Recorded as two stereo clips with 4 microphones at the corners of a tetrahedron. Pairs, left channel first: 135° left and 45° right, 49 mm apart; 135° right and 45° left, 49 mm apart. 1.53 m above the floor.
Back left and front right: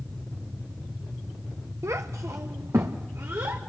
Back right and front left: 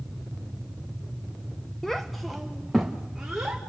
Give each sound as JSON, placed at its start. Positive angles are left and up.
{"t": 1.8, "sound": "a child speaking", "azimuth_deg": -55, "distance_m": 0.8}